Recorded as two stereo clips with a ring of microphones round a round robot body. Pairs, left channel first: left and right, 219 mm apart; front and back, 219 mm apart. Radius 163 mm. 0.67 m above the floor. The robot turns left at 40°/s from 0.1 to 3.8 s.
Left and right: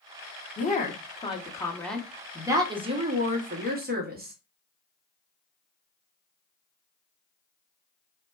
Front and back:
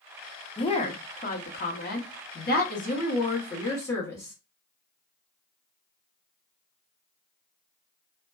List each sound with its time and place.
0.6 s a woman speaking: 60° left, 0.9 m; by 4.3 s 70° right, 0.9 m